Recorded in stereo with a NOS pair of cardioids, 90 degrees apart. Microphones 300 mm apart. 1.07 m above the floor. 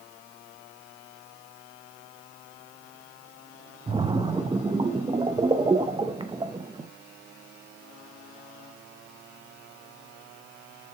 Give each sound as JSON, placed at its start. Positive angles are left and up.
{"t": 3.9, "sound": "a splash", "azimuth_deg": -15, "distance_m": 0.7}